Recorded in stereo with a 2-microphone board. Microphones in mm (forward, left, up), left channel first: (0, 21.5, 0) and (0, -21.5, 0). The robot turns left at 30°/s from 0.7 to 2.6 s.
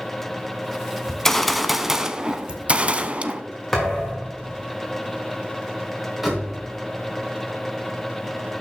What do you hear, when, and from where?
1.1 s a gunshot: 15° left, 0.6 m; by 3.4 s 30° right, 0.6 m
3.7 s a thud: 5° left (ahead or behind), 4 m
6.2 s a door slam: 5° right (ahead or behind), 3.5 m